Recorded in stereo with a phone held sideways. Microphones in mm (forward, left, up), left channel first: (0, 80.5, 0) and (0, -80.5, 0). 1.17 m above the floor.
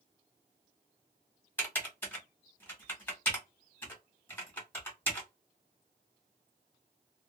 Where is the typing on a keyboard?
10° left (ahead or behind), 1.5 m.